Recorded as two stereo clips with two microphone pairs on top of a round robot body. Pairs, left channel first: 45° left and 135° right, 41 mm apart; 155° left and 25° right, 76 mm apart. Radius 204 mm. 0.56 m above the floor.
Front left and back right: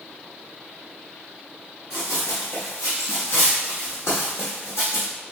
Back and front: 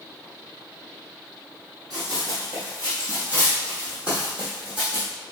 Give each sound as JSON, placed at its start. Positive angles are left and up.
{"t": 1.9, "sound": "running footsteps", "azimuth_deg": 20, "distance_m": 0.8}